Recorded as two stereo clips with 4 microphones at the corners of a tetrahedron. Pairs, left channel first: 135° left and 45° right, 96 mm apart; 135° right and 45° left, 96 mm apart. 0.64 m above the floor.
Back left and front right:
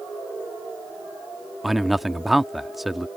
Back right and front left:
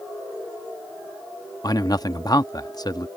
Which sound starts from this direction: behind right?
A man speaking, at 1.6 s.